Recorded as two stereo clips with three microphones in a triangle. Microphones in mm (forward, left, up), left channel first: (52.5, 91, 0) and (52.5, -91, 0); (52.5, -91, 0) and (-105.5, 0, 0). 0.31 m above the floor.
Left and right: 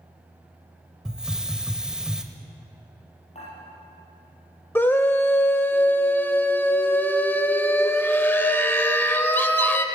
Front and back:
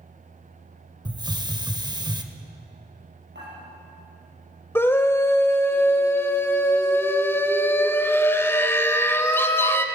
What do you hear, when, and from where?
1.1 s a hiss: 170° right, 0.7 m
3.4 s dishes clattering: 145° left, 4.5 m
4.8 s a scream: 25° left, 0.9 m